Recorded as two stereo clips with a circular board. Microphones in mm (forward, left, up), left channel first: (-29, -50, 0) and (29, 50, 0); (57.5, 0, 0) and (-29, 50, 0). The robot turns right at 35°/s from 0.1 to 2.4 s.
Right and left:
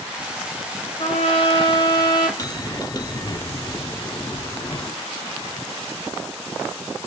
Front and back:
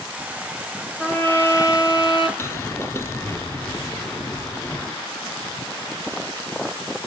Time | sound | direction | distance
1.0 | a trumpet | 105° right | 3 m
2.4 | a bell | 80° right | 0.6 m